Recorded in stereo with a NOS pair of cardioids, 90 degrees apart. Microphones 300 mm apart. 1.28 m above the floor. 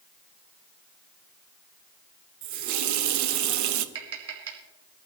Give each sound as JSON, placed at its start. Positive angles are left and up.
{"t": 2.4, "sound": "a running tap", "azimuth_deg": -70, "distance_m": 0.9}
{"t": 4.0, "sound": "tapping", "azimuth_deg": -50, "distance_m": 3.5}